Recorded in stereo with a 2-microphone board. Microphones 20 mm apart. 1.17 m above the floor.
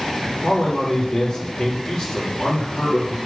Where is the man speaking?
45° left (ahead or behind), 2.5 m.